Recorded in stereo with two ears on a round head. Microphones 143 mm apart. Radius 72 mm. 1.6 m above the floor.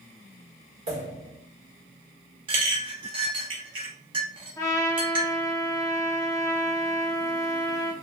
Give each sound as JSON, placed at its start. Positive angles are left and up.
{"t": 0.9, "sound": "a pop", "side_deg": -45, "distance_m": 1.5}
{"t": 2.5, "sound": "a clink", "side_deg": -35, "distance_m": 0.9}
{"t": 4.6, "sound": "a trumpet", "side_deg": 20, "distance_m": 0.7}